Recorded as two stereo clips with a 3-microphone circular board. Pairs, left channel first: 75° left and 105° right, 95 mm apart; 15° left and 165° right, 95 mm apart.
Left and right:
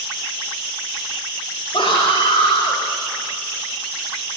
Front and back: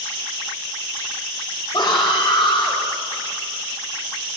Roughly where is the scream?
Ahead left.